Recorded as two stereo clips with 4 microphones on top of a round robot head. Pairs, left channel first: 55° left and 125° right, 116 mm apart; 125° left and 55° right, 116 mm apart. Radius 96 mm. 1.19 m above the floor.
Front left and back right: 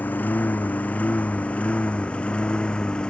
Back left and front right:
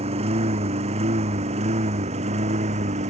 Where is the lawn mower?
20° right; by 3.1 s 25° right.